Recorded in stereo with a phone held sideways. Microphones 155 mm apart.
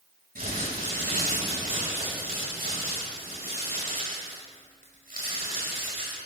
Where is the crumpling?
70° right (ahead or behind), 5.5 m.